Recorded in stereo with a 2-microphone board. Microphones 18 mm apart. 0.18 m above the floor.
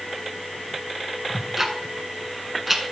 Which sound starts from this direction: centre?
Ticking, at 1.3 s.